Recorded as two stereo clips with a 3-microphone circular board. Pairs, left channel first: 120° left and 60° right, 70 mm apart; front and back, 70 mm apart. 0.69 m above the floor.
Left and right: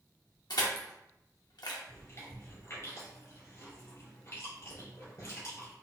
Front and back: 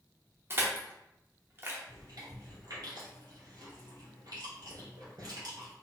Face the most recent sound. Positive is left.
turn(degrees=160)